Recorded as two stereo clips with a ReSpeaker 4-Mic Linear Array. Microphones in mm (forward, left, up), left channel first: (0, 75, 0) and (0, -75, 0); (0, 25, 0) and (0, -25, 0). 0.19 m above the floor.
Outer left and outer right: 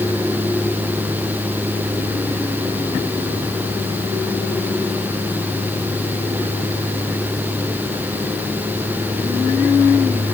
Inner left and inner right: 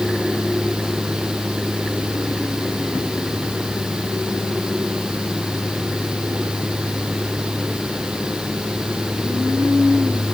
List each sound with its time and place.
Only background noise.